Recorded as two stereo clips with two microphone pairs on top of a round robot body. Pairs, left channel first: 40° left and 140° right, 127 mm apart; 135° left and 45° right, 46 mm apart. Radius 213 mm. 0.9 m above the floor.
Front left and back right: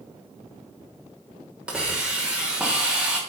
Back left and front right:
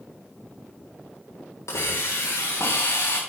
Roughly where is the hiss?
Behind left.